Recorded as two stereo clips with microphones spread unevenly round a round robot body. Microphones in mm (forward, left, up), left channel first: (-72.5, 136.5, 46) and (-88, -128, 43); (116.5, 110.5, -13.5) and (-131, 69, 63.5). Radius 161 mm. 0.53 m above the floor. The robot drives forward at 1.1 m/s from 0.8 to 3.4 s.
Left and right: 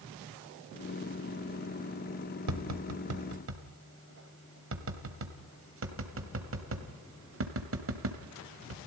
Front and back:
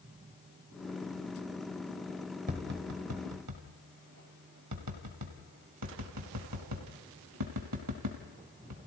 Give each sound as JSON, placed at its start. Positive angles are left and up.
{"t": 2.5, "sound": "tapping", "azimuth_deg": -100, "distance_m": 1.7}